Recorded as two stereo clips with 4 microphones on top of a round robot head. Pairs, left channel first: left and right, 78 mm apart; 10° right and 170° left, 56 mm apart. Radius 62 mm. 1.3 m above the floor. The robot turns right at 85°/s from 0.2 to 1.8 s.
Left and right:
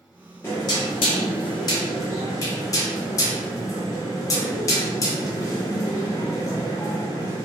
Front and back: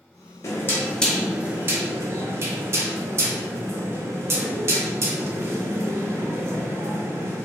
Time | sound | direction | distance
0.4 | knocking | 20° left | 0.6 m